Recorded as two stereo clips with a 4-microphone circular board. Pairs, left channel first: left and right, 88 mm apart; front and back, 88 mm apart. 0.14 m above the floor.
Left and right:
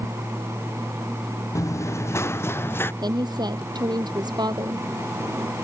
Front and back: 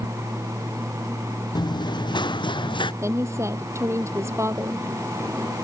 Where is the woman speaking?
125° right.